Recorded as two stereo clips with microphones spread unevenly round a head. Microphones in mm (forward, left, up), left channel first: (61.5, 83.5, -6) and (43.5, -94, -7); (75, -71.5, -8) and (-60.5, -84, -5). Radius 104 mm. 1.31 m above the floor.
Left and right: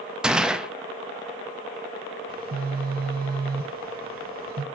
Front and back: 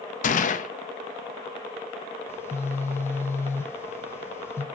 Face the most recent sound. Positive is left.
turn(degrees=-65)